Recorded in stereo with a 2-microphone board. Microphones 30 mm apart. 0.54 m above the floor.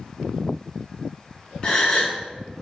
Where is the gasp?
30° left (ahead or behind), 1.4 m.